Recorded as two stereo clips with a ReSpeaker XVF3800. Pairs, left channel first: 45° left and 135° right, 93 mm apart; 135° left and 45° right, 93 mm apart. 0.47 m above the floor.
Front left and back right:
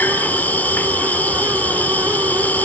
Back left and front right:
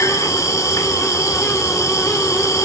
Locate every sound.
0.0 s an insect: 105° left, 2 m